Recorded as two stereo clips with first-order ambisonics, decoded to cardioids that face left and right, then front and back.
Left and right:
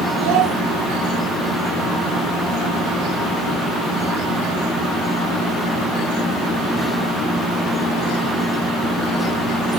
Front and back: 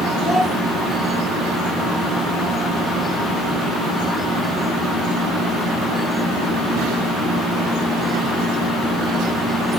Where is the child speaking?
95° right, 1.5 m.